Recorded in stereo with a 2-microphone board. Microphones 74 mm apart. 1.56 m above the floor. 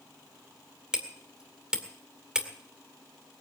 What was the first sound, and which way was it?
Hammering, 10° right (ahead or behind).